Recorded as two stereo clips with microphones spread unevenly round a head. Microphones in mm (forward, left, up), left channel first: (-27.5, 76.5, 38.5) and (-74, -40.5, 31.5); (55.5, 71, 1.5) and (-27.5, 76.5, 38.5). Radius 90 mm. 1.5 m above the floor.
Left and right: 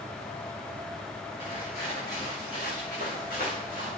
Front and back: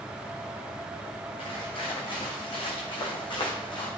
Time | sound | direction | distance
1.4 | footsteps | 10° left | 8 m